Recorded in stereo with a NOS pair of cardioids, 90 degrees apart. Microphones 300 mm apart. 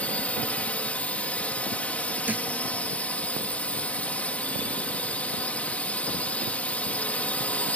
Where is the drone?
5° left.